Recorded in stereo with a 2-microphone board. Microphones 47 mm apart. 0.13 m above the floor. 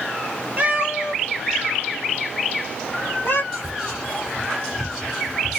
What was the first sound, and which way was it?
A cat meowing, 35° right (ahead or behind).